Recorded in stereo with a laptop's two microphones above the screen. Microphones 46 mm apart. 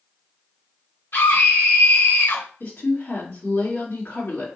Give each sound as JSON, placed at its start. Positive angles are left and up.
{"t": 1.1, "sound": "a scream", "side_deg": 60, "distance_m": 2.0}
{"t": 2.6, "sound": "a woman speaking", "side_deg": 55, "distance_m": 2.0}